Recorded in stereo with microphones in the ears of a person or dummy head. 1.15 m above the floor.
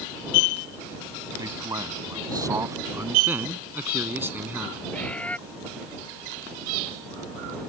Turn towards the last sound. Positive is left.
turn(degrees=10)  # may be behind; listen again after turning